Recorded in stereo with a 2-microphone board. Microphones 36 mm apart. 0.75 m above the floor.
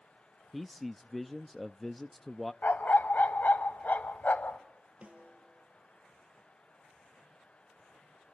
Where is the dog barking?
60° left (ahead or behind), 0.9 m.